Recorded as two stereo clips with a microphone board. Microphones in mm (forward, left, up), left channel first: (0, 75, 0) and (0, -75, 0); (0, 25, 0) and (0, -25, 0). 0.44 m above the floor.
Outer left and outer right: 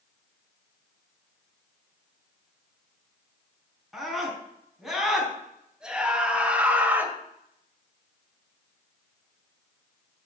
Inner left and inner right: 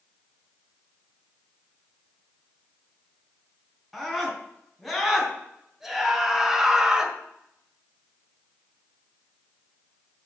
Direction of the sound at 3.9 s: Centre (ahead or behind).